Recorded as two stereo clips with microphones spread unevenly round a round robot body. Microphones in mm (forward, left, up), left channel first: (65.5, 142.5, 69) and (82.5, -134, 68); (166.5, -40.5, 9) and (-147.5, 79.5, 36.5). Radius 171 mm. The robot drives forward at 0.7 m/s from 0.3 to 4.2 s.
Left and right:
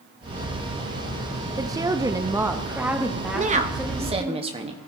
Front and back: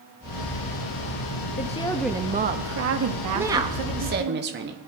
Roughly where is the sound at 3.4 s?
Right.